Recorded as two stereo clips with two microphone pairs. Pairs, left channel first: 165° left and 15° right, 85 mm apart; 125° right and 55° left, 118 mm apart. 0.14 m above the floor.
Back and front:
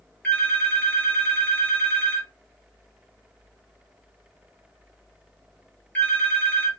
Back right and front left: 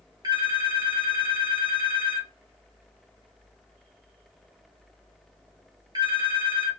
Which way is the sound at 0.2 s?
95° left.